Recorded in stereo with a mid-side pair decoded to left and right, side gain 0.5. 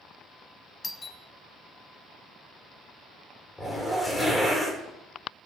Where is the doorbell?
25° left, 0.6 m.